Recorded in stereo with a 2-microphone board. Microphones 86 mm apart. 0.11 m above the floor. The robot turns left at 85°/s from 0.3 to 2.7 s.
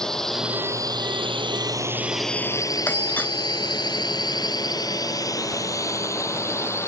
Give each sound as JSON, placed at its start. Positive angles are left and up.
{"t": 0.0, "sound": "a drone", "side_deg": 5}
{"t": 2.9, "sound": "a doorbell", "side_deg": 20}